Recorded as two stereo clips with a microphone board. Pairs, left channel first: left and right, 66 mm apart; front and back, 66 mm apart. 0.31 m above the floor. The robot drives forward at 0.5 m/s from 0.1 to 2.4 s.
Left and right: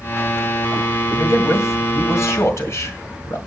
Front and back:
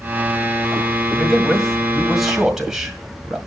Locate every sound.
1.1 s a man speaking: 80° left, 2 m; by 3.4 s 100° left, 2 m